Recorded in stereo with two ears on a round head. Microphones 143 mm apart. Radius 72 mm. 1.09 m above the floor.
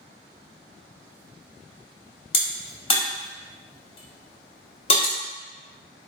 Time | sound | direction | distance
2.3 | a crack | 35° left (ahead or behind) | 0.8 m